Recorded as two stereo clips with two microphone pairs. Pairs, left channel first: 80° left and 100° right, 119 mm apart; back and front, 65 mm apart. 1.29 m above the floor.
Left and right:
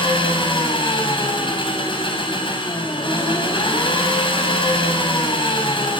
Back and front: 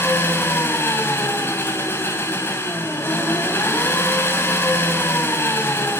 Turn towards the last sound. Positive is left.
turn(degrees=125)